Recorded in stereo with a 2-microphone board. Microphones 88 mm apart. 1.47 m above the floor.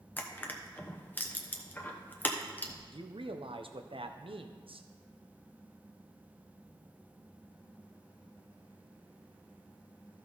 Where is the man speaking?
80° right, 0.8 m.